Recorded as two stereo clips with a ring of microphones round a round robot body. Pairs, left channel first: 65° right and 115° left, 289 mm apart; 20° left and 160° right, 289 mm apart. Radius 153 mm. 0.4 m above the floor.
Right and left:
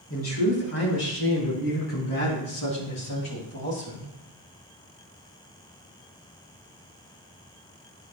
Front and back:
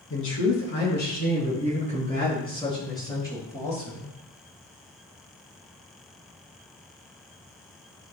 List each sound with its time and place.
0.1 s a man speaking: 25° right, 5 m; by 4.1 s 60° right, 7.5 m